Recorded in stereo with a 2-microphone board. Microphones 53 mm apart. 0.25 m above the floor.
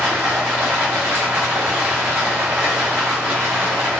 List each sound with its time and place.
0.0 s running water: 55° right (ahead or behind), 1.9 m